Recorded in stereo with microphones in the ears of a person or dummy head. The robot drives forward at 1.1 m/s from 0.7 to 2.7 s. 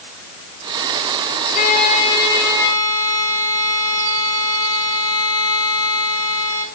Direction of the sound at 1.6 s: 45° left (ahead or behind).